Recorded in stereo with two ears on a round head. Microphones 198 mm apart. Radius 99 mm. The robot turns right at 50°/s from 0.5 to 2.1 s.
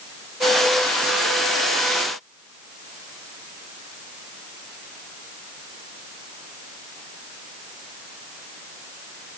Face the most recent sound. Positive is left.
No sound to turn to.